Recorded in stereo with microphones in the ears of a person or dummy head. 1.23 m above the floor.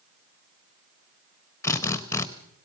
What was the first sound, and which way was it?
A drill, 15° left (ahead or behind).